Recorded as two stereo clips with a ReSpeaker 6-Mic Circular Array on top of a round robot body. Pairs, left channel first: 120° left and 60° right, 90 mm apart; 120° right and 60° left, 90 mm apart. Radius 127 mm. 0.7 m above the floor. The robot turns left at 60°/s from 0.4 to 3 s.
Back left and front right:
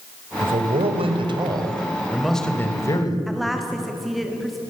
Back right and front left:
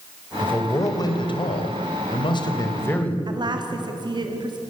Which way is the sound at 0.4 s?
40° right.